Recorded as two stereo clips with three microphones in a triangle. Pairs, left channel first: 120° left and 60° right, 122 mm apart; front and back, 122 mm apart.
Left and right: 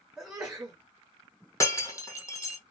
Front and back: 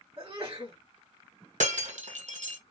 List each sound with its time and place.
0.2 s a sneeze: 140° right, 2.0 m
1.6 s breaking glass: 175° right, 1.7 m